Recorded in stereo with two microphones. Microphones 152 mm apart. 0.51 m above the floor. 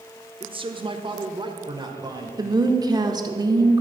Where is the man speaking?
35° right (ahead or behind), 1.0 m; by 2.3 s 25° right (ahead or behind), 2 m.